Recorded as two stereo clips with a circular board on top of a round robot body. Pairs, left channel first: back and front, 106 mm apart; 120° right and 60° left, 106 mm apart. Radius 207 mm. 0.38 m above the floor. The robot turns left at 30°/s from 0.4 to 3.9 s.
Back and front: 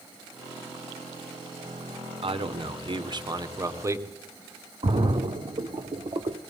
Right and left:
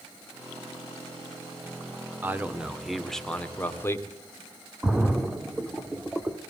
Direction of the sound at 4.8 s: 20° right.